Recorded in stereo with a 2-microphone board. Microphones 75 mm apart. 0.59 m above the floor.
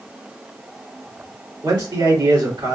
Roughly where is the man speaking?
Right.